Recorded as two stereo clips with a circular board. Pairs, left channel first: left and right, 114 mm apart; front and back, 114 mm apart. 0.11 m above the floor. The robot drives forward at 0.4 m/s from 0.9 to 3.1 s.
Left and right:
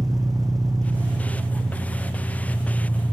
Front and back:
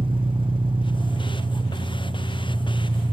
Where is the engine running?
145° right, 1.3 m; by 3.1 s 160° right, 2 m.